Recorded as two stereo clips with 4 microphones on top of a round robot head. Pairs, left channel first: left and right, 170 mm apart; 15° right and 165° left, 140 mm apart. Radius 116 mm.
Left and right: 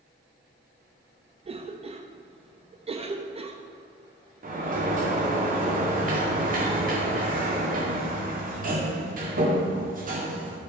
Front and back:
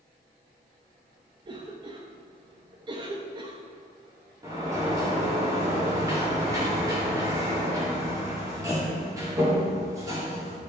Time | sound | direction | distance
1.4 | a cough | 140° right | 0.8 m
4.4 | a sliding door | 125° right | 2 m